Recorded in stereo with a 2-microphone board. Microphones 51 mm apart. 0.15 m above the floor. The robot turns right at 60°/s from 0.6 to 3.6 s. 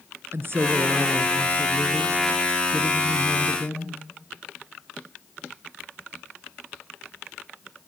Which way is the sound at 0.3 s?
105° right.